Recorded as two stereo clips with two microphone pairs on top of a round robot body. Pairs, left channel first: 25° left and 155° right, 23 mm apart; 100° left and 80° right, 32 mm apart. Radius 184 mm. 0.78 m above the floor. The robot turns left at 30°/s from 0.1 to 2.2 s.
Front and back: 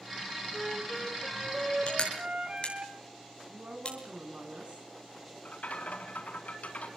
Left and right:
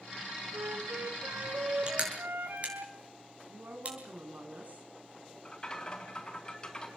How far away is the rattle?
About 4 m.